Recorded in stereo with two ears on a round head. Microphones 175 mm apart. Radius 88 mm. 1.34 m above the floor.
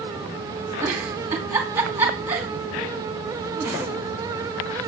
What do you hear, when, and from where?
0.8 s a giggle: 10° right (ahead or behind), 2.5 m